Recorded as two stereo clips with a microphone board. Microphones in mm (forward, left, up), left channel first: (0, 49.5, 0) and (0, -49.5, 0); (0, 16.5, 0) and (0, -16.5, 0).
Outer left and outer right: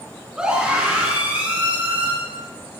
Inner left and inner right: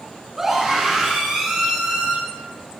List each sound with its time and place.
0.4 s a scream: 10° right (ahead or behind), 5.5 m; by 2.1 s 15° right (ahead or behind), 6.5 m